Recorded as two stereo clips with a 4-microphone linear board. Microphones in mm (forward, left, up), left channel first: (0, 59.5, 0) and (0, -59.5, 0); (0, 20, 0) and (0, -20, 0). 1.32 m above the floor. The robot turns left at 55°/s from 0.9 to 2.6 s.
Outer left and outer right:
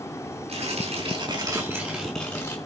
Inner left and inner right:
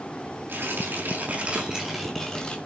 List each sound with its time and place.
0.5 s tearing paper: 115° right, 6 m; by 2.5 s 155° left, 6 m